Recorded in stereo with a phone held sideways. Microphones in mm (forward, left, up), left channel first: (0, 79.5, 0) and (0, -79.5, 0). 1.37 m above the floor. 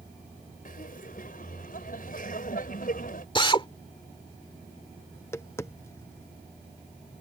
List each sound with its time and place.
0.7 s laughter: 65° left (ahead or behind)
3.4 s a drill: 35° left (ahead or behind)
5.1 s tapping: 15° left (ahead or behind)